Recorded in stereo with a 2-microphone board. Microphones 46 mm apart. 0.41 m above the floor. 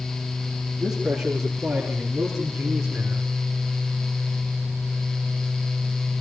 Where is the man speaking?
5° right (ahead or behind), 6 m; by 3.3 s 15° right (ahead or behind), 4 m.